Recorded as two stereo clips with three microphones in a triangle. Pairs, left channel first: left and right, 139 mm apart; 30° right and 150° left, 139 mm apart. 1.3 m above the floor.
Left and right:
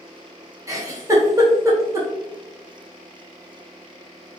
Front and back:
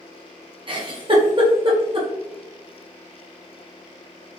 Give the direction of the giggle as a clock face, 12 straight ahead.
5 o'clock.